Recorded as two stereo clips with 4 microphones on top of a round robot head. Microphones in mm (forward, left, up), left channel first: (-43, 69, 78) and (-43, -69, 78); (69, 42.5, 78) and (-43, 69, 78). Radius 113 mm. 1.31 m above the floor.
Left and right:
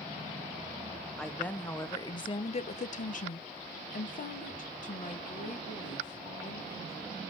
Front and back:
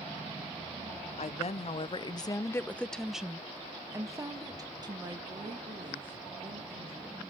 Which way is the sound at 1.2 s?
5° left.